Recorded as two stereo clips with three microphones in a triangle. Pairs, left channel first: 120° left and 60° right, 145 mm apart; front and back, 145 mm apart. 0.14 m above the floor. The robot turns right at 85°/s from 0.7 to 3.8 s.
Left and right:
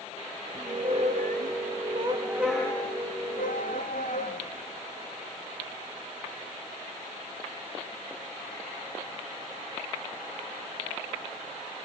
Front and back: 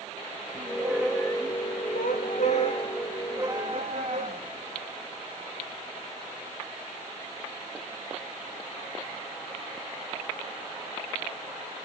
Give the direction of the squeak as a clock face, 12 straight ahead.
4 o'clock.